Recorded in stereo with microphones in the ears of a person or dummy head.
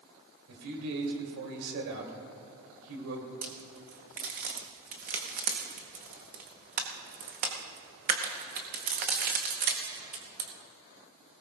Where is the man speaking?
75° right (ahead or behind), 3 m.